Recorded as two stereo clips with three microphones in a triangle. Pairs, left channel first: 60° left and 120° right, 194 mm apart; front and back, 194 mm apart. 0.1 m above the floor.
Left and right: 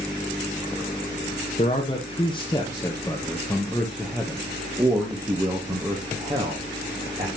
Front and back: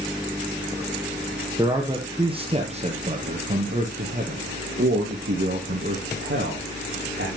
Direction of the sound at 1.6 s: 110° left.